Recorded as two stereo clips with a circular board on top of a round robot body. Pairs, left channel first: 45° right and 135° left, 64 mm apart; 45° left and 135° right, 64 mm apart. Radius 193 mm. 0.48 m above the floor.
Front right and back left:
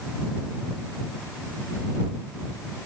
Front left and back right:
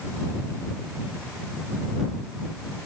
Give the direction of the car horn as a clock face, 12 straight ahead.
I don't hear a car horn.